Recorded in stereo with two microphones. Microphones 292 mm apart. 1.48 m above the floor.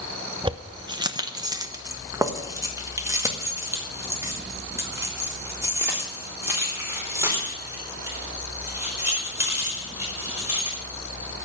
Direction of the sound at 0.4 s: 15° right (ahead or behind).